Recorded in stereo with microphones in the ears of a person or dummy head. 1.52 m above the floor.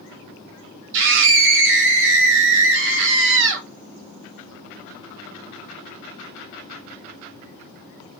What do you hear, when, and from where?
0.9 s a scream: 70° right (ahead or behind), 1.7 m